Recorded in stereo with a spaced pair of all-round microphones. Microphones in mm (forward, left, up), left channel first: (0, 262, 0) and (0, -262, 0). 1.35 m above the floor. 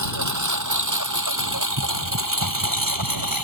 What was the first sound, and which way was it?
A lawn mower, 35° right (ahead or behind).